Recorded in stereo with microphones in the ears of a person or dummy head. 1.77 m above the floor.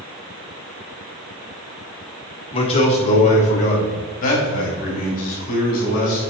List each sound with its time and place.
2.5 s a man speaking: 35° left (ahead or behind), 1.6 m; by 6.2 s 50° left (ahead or behind), 4.5 m